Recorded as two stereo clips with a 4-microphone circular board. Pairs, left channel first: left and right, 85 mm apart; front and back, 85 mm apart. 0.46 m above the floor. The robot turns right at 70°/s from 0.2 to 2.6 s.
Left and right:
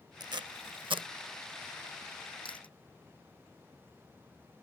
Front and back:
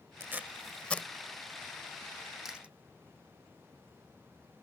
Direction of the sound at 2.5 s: 95° left.